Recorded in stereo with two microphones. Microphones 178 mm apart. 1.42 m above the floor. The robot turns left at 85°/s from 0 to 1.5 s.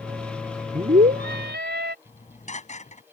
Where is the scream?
30° right; by 1.9 s 95° right.